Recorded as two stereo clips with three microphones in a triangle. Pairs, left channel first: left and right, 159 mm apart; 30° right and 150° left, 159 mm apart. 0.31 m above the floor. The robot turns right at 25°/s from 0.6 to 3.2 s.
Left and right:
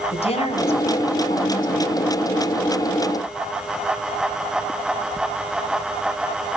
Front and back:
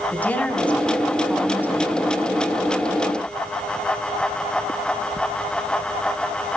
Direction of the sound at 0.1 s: 50° left.